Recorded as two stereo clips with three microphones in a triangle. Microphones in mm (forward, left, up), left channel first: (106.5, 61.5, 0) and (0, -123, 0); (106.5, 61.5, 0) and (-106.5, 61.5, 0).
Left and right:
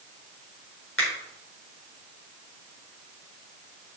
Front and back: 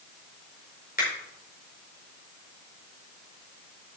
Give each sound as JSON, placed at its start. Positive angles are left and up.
{"t": 1.0, "sound": "a finger snap", "azimuth_deg": 45, "distance_m": 4.0}